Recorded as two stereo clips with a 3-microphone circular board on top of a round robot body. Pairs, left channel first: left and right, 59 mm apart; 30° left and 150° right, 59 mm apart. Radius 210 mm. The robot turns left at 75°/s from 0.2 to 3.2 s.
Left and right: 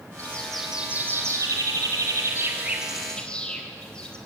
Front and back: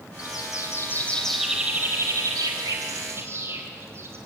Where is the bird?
30° left, 4 m; by 4.2 s 165° left, 4 m.